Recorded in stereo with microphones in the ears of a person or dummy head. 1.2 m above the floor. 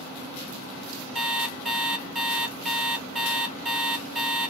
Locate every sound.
1.1 s an alarm clock: 5° right (ahead or behind), 0.6 m